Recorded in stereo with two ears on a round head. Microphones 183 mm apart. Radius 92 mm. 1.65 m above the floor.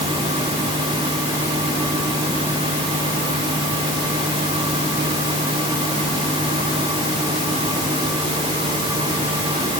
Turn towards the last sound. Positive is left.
No sound to turn to.